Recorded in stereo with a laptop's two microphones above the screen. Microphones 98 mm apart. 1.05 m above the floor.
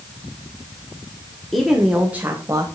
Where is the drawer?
I don't hear a drawer.